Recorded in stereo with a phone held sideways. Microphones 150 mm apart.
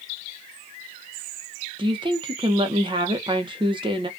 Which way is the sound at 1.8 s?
35° right (ahead or behind).